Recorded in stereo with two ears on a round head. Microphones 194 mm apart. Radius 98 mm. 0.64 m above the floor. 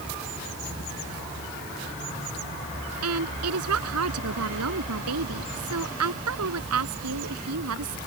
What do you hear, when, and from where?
3.0 s a woman speaking: 85° right